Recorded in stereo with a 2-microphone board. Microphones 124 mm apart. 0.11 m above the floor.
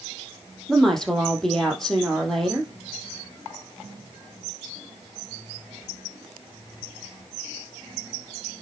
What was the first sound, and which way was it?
A woman speaking, 5° left (ahead or behind).